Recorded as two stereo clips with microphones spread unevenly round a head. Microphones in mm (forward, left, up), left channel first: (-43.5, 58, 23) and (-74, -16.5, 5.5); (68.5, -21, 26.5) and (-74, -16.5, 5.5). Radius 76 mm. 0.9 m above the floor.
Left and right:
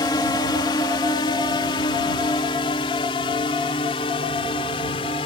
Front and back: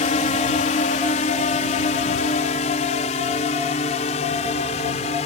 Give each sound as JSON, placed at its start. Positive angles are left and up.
{"t": 0.0, "sound": "a drone", "azimuth_deg": 30}